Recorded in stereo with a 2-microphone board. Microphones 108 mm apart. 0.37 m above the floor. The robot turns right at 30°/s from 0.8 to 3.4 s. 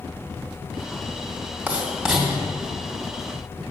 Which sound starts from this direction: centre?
Writing, at 1.7 s.